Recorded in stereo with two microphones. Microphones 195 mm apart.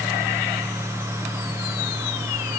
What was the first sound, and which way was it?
Only background noise.